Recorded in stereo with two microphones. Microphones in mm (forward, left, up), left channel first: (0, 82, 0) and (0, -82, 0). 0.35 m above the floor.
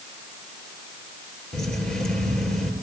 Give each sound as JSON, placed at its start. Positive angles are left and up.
{"t": 1.5, "sound": "keys jangling", "side_deg": 5, "distance_m": 5.5}